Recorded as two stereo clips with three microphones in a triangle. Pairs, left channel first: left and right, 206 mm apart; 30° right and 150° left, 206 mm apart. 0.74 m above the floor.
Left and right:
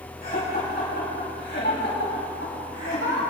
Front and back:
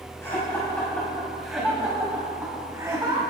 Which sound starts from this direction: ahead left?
Laughter, at 0.2 s.